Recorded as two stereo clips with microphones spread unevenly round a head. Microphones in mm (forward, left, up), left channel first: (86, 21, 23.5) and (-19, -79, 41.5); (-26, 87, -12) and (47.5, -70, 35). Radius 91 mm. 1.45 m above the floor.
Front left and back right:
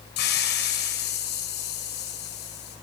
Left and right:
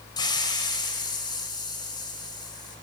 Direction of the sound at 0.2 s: 45° left.